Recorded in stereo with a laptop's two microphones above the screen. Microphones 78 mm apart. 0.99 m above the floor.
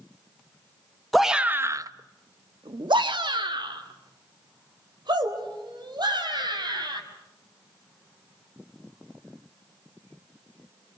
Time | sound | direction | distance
1.1 | a shout | centre (ahead or behind) | 1.0 m